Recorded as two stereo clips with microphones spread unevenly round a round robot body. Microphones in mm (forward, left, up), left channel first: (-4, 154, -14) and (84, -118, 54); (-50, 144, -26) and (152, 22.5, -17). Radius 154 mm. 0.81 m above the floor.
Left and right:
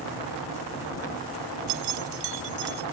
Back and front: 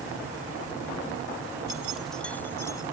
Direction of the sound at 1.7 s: 110° right.